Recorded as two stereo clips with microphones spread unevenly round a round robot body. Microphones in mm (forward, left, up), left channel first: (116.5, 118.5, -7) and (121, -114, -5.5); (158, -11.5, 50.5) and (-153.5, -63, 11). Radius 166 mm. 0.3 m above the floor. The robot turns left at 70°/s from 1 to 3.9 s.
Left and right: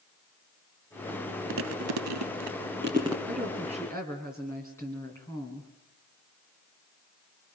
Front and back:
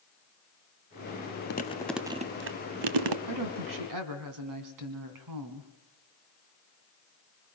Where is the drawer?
No drawer in this recording.